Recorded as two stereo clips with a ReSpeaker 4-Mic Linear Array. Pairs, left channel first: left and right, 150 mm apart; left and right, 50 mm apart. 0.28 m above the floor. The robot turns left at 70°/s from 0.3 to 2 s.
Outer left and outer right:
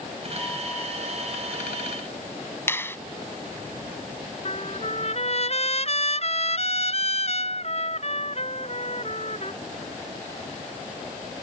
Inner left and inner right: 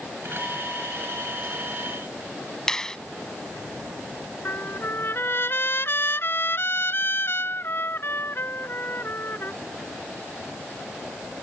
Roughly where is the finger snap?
Centre.